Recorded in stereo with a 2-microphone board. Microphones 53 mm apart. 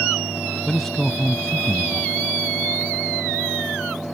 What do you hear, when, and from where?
0.7 s a man speaking: 5° left (ahead or behind)